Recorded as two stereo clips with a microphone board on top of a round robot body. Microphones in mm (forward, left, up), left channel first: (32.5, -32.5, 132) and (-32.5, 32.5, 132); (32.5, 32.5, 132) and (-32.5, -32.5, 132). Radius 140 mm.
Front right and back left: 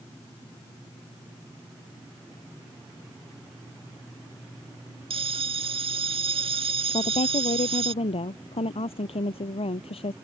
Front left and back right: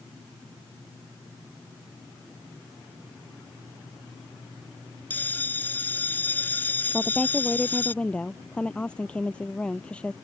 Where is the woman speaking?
35° right.